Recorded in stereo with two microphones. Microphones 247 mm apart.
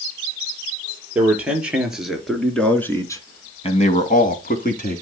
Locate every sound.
1.1 s a man speaking: 5° right (ahead or behind), 4.5 m; by 5.0 s 35° left (ahead or behind), 2.5 m